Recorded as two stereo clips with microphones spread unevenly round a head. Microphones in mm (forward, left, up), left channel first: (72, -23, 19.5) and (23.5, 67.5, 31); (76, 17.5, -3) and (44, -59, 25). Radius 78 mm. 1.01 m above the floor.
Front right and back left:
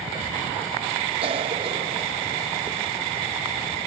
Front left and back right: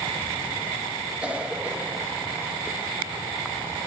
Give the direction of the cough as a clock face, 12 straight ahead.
7 o'clock.